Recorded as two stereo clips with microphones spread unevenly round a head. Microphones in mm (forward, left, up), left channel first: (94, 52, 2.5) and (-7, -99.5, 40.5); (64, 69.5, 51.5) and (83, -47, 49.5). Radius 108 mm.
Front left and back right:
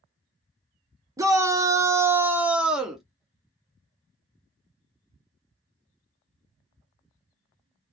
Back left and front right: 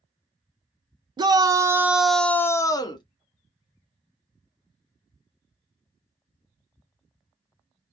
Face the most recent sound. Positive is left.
turn(degrees=135)